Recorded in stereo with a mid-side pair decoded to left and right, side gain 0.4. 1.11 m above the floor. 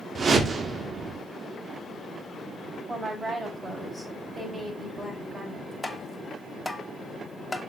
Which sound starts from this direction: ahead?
Tapping, at 5.8 s.